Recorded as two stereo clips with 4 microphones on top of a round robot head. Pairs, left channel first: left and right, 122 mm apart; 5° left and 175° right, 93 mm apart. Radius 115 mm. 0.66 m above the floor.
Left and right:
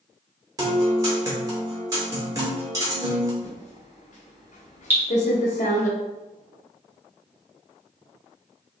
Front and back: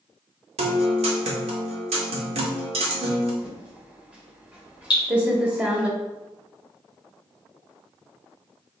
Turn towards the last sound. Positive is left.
turn(degrees=-20)